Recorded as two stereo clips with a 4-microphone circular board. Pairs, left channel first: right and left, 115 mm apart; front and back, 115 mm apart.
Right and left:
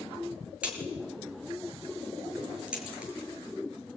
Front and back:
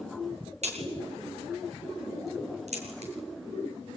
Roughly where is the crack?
Behind.